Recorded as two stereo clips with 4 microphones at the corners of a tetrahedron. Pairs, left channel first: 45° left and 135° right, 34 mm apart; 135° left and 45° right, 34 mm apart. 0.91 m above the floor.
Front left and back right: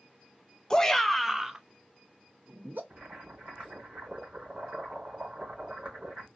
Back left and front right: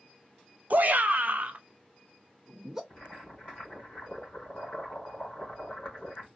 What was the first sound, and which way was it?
A shout, 25° right.